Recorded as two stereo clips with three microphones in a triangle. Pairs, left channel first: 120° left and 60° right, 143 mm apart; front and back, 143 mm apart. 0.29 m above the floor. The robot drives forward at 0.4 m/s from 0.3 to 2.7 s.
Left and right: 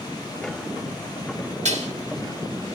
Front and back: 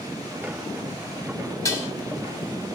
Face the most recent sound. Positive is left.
turn(degrees=-90)